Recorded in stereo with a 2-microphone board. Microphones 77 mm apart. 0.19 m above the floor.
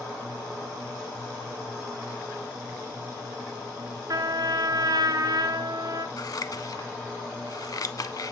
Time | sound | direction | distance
4.1 | a trumpet | 55° right (ahead or behind) | 0.9 m
6.2 | scissors | 50° left (ahead or behind) | 0.6 m